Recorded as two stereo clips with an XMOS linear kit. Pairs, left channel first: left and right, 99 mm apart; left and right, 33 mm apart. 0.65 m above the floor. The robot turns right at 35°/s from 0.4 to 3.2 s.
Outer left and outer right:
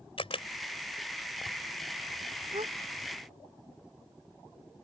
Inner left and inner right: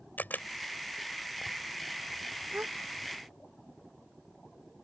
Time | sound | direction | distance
0.2 | a camera shutter | 70° left (ahead or behind) | ?
2.5 | a gasp | 75° right (ahead or behind) | ?